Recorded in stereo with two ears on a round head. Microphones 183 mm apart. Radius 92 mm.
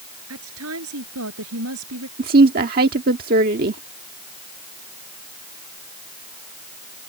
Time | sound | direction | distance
0.3 | a woman speaking | 75° right (ahead or behind) | ?
2.2 | a woman speaking | 45° right (ahead or behind) | ?